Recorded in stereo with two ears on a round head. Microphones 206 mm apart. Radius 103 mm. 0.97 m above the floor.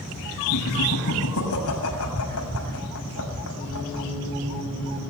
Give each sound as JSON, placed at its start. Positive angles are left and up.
{"t": 0.5, "sound": "laughter", "side_deg": 70, "distance_m": 6.5}